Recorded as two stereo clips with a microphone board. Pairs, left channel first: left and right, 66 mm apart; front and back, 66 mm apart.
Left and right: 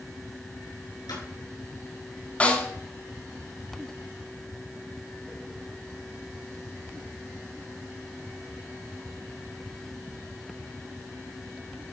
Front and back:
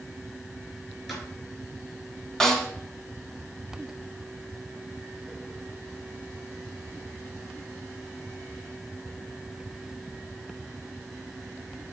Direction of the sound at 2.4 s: 70° left.